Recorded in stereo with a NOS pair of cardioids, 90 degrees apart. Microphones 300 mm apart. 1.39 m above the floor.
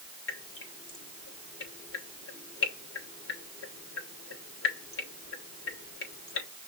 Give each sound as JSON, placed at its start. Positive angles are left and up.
{"t": 0.3, "sound": "dripping", "azimuth_deg": 45, "distance_m": 3.0}